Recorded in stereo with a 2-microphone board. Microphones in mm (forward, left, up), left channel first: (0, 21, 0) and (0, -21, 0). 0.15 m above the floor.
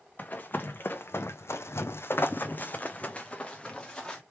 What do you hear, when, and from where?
0.2 s running footsteps: 40° left (ahead or behind), 1.0 m; by 4.2 s 15° left (ahead or behind), 1.4 m